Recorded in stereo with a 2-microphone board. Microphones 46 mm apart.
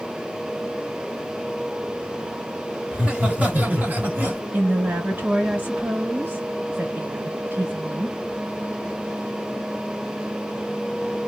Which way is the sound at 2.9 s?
25° right (ahead or behind).